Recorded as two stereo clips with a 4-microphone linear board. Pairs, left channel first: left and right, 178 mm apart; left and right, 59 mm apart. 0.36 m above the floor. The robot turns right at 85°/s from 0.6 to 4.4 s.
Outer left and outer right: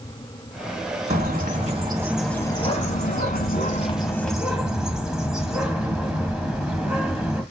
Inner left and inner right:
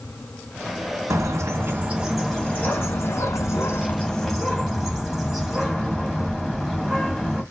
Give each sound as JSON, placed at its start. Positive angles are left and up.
{"t": 1.1, "sound": "a bird", "azimuth_deg": -95, "distance_m": 2.0}